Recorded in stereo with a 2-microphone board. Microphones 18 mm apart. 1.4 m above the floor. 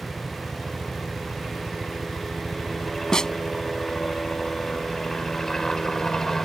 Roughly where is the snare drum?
Left.